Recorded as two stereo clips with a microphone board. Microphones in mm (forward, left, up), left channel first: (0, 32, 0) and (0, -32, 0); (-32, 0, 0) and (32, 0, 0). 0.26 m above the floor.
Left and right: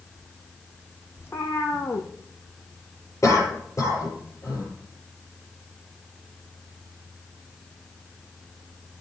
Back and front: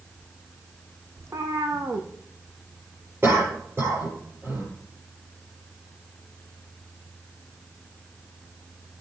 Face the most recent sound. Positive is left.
turn(degrees=50)